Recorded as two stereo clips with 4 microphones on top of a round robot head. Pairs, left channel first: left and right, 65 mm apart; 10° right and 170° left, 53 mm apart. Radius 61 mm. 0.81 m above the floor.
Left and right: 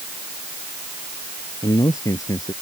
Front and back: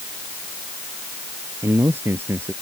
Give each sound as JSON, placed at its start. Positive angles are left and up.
{"t": 1.6, "sound": "a man speaking", "azimuth_deg": 125}